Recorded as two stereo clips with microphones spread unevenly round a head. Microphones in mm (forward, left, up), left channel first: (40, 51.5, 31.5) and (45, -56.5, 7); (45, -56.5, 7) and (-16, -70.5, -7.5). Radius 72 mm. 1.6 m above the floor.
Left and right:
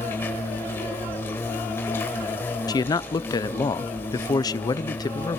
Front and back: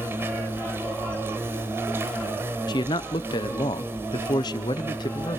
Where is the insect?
130° left, 1.6 m.